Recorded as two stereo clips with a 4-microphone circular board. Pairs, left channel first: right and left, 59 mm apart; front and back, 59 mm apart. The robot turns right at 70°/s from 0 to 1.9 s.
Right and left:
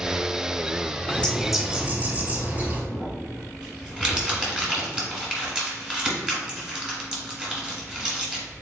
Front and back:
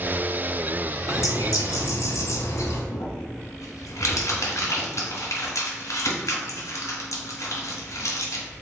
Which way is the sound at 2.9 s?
10° left.